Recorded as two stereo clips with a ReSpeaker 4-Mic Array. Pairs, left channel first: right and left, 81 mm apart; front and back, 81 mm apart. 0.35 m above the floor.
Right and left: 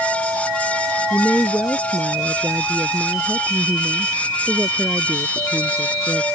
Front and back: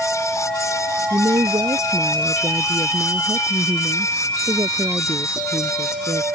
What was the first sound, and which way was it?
A woman speaking, 160° left.